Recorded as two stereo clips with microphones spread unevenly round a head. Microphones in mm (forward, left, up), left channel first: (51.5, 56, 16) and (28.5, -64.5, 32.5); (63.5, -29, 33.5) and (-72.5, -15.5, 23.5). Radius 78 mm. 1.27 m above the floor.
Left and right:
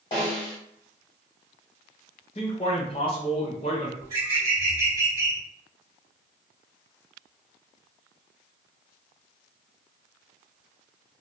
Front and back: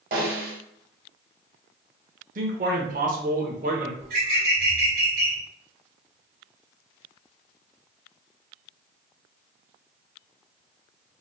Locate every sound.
0.1 s a snare drum: 145° left, 1.2 m
2.4 s a man speaking: 135° left, 0.8 m
4.0 s a bird: 160° right, 1.6 m